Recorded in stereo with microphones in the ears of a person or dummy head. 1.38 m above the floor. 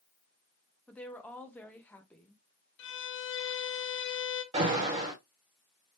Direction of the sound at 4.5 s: 35° right (ahead or behind).